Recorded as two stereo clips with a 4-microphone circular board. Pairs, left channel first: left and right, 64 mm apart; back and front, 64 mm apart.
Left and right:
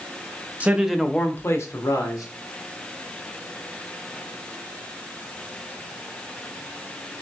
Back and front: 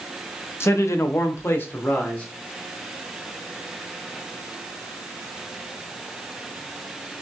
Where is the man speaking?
145° right, 0.7 m; by 2.2 s 110° left, 1.3 m.